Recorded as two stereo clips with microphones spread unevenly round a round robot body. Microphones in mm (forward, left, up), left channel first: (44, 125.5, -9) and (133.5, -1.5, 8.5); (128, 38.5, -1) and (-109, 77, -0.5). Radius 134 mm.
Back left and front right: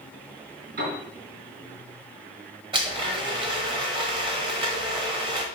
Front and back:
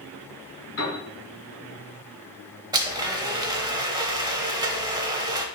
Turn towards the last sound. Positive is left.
turn(degrees=-120)